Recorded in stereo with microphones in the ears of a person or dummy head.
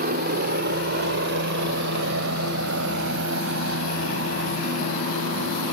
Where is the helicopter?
50° right (ahead or behind); by 5.7 s 75° right (ahead or behind).